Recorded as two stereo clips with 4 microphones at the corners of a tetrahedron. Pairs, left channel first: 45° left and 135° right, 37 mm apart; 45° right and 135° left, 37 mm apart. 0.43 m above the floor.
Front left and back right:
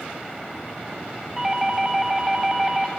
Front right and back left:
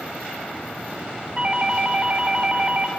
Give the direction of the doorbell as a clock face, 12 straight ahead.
7 o'clock.